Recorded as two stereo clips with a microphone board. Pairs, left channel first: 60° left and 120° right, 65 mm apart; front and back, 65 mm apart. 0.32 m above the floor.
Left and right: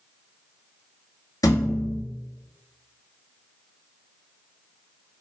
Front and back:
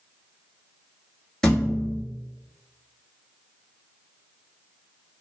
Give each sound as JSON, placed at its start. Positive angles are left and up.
{"t": 1.4, "sound": "a thud", "azimuth_deg": 80, "distance_m": 0.8}